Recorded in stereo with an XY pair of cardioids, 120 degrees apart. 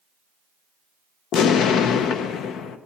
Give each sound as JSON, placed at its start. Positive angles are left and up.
{"t": 1.3, "sound": "an explosion", "azimuth_deg": 70, "distance_m": 0.7}